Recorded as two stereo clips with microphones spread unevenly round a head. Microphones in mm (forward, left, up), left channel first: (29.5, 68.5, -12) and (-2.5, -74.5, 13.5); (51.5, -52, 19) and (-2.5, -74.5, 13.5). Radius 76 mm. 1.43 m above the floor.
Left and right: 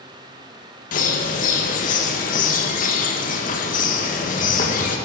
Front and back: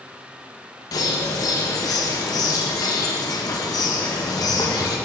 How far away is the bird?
About 1.0 m.